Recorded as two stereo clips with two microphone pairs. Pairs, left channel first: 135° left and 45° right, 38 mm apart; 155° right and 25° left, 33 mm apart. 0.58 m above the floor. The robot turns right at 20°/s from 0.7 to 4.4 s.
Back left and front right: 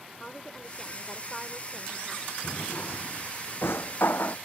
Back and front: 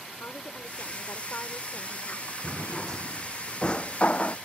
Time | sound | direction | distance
0.2 | a woman speaking | 150° right | ?
2.4 | a drawer | 120° left | ?